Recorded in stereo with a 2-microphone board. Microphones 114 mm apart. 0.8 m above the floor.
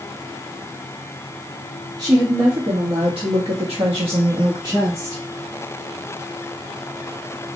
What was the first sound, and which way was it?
A woman speaking, 40° right (ahead or behind).